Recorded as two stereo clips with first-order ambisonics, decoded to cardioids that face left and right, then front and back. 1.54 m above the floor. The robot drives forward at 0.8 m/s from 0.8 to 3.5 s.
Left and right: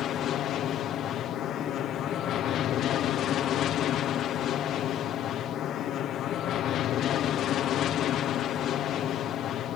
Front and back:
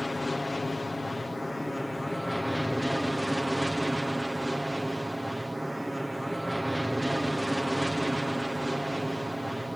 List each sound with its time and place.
0.0 s an aircraft: 80° left; by 9.8 s 95° left